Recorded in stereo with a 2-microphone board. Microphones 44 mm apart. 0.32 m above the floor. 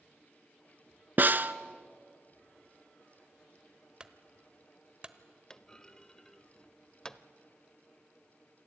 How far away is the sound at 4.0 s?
About 1.0 m.